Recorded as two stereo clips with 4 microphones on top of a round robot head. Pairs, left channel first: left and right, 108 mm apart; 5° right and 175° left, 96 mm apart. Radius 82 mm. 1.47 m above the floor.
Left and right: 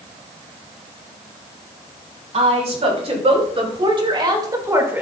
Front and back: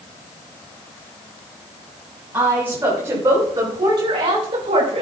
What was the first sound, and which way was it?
A woman speaking, 110° right.